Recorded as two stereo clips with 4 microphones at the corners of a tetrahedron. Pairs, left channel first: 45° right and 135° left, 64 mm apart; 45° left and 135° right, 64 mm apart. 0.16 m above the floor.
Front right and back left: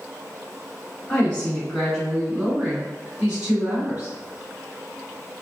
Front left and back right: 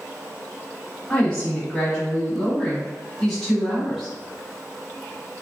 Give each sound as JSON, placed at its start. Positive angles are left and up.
{"t": 1.1, "sound": "a woman speaking", "azimuth_deg": -10, "distance_m": 1.7}